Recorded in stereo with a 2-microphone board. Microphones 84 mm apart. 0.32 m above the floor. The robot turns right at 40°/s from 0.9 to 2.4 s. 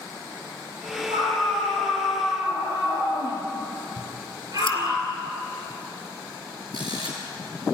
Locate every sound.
1.1 s a scream: 100° right, 7 m; by 5.0 s 45° right, 7 m
4.0 s scissors: 85° left, 2.5 m
6.7 s a camera shutter: 55° right (ahead or behind), 7 m